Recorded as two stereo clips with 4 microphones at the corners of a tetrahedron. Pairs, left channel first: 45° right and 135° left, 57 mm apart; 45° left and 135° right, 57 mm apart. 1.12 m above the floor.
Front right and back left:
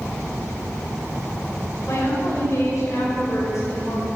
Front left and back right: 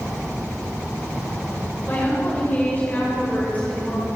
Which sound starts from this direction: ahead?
A woman speaking, at 1.9 s.